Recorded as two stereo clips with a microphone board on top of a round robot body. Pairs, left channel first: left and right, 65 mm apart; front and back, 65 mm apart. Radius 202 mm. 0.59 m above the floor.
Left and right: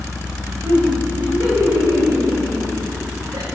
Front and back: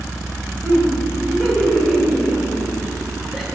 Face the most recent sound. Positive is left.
turn(degrees=-90)